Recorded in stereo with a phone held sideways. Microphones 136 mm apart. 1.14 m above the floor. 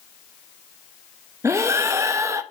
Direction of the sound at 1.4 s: 20° right (ahead or behind).